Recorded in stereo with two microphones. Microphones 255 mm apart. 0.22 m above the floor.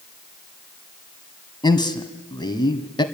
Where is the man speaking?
15° left (ahead or behind), 1.6 m.